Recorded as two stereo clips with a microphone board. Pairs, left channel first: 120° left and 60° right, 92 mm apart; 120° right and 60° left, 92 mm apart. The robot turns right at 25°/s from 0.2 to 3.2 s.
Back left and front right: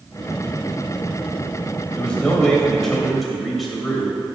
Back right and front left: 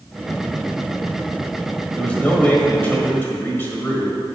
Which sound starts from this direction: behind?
A man speaking, at 2.0 s.